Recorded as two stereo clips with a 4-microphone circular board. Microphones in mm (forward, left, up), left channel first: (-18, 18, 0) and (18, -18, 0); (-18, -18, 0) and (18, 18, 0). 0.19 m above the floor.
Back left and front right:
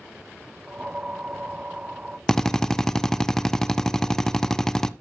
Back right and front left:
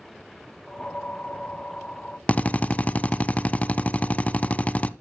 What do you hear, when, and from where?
0.7 s a whoosh: 95° right, 0.6 m
2.3 s a drill: 155° right, 0.6 m